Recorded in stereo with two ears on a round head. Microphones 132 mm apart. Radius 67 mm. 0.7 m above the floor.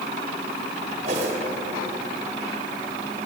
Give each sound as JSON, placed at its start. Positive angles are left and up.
{"t": 1.1, "sound": "a whoosh", "side_deg": -50, "distance_m": 4.0}